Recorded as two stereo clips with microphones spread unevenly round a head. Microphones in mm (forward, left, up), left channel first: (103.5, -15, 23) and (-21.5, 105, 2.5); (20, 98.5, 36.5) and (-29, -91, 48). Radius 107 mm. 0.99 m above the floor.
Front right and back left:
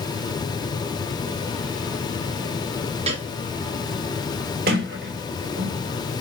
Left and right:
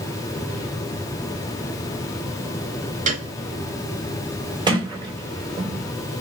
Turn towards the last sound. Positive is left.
turn(degrees=-175)